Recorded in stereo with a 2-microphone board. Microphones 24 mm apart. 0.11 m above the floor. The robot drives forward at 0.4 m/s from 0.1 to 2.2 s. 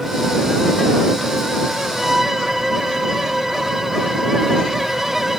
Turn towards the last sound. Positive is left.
turn(degrees=-15)  # may be behind; listen again after turning